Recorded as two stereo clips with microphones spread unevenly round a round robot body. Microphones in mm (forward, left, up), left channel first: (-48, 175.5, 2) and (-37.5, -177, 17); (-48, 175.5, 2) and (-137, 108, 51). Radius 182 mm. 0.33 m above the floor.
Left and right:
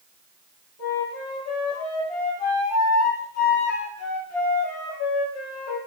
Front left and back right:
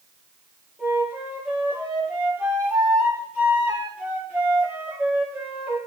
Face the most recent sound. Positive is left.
turn(degrees=140)